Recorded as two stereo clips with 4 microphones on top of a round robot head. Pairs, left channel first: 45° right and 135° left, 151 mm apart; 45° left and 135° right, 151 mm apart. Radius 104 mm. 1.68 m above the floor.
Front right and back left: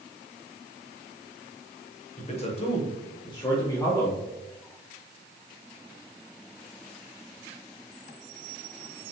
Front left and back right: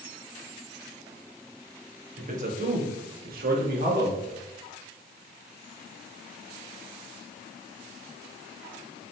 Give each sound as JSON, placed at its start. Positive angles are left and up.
{"t": 2.2, "sound": "a man speaking", "azimuth_deg": -95, "distance_m": 1.9}